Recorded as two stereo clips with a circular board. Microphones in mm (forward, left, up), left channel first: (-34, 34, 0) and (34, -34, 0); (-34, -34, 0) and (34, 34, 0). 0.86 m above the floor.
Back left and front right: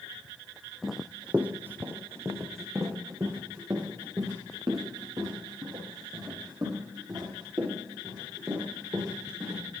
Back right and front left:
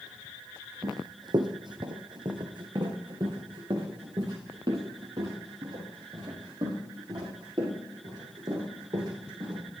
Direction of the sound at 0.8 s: 45° left.